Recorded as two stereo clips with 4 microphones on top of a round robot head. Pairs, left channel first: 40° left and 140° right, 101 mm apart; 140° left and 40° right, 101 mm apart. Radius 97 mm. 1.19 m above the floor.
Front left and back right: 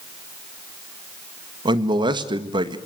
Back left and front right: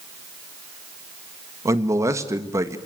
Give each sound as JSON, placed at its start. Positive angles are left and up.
{"t": 1.6, "sound": "a man speaking", "azimuth_deg": -100, "distance_m": 1.7}